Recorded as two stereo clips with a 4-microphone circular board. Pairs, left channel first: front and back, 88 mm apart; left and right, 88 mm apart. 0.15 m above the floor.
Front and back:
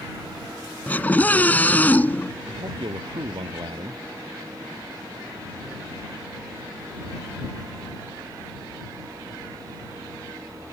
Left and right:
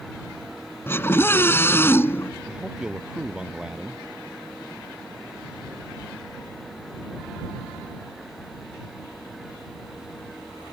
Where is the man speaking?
170° right.